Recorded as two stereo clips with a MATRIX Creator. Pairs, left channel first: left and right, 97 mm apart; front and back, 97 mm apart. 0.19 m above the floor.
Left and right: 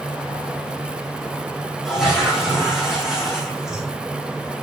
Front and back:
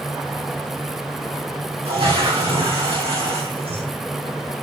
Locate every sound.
1.9 s a toilet flushing: 175° right, 4 m